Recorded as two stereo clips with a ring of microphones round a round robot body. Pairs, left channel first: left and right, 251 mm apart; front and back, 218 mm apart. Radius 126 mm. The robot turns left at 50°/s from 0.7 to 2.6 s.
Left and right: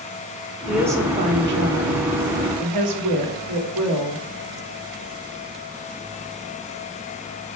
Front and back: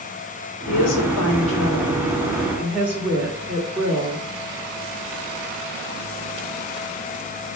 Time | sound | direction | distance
0.7 | a woman speaking | straight ahead | 1.9 m